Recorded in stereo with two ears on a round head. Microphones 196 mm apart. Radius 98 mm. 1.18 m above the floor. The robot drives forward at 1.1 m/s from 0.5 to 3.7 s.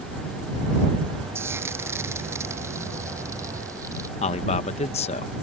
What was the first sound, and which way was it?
Frying, 10° right (ahead or behind).